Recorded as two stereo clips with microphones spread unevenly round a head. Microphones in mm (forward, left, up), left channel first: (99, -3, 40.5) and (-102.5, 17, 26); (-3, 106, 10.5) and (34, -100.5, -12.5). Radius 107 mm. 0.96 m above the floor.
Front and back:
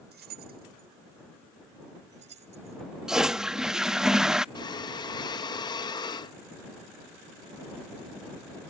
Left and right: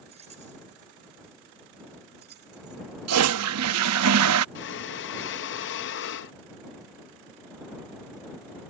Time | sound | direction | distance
0.1 | keys jangling | 145° right | ?
3.1 | a toilet flushing | 95° right | ?
4.5 | breathing | 65° left | ?